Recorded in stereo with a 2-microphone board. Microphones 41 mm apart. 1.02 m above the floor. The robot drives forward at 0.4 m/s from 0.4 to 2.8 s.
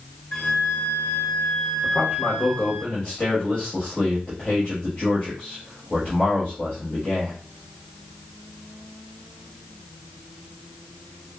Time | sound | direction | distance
0.3 | a flute | 55° left (ahead or behind) | 1.6 m
1.8 | a man speaking | 50° left (ahead or behind) | 1.0 m